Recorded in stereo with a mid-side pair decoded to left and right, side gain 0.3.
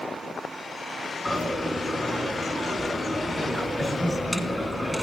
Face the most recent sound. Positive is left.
turn(degrees=5)